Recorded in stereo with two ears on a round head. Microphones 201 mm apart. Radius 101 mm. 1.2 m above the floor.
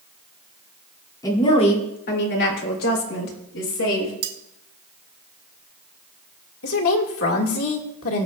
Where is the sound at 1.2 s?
15° left (ahead or behind), 2.5 m; by 4.1 s 80° left, 4.5 m.